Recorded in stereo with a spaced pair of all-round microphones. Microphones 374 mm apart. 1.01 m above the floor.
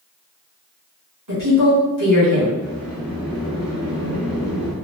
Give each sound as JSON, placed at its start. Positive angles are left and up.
{"t": 1.3, "sound": "a woman speaking", "side_deg": -60, "distance_m": 1.4}
{"t": 2.6, "sound": "a sliding door", "side_deg": -5, "distance_m": 0.7}